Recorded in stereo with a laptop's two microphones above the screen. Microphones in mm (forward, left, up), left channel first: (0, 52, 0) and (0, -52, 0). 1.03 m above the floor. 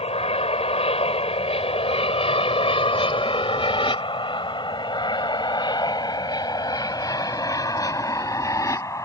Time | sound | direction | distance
0.0 | an aircraft | 75° left (ahead or behind) | ?